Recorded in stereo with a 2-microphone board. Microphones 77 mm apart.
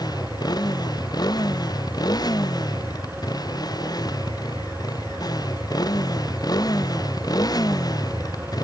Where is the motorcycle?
65° left (ahead or behind); by 8.7 s 60° left (ahead or behind).